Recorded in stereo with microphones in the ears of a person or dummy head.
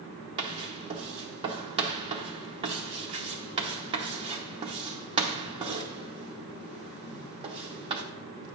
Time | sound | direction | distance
0.4 | writing | 25° right (ahead or behind) | 0.7 m